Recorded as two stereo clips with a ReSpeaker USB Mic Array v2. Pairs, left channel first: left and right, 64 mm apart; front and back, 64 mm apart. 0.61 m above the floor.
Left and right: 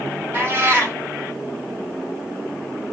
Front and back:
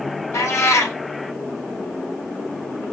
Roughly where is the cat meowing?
Ahead right.